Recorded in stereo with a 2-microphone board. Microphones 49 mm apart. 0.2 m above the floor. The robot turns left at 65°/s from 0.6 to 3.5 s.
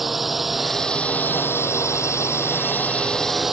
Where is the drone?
Straight behind; by 3.5 s 10° right.